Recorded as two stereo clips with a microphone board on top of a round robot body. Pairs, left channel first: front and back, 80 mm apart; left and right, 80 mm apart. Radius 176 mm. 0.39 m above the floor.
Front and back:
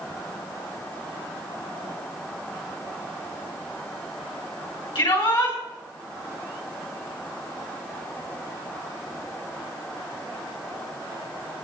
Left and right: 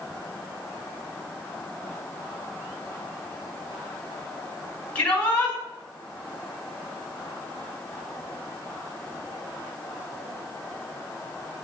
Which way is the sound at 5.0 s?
15° left.